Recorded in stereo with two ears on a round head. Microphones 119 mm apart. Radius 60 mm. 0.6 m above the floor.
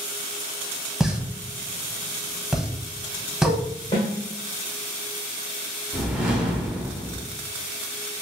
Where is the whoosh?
10° right (ahead or behind), 0.9 m.